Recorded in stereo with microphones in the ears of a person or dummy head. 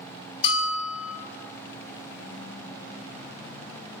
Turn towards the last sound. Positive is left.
turn(degrees=35)  # may be behind; listen again after turning